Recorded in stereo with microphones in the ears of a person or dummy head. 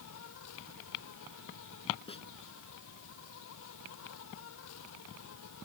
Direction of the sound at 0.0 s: 75° left (ahead or behind).